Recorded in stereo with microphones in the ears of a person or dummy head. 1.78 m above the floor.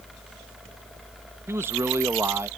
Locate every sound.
1.5 s a man speaking: 15° right (ahead or behind)